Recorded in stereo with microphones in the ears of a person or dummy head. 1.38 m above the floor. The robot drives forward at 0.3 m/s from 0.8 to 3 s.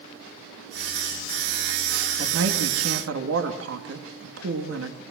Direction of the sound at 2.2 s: 85° right.